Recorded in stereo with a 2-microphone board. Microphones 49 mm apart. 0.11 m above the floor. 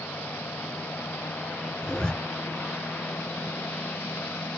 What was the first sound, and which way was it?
A zipper, 20° left (ahead or behind).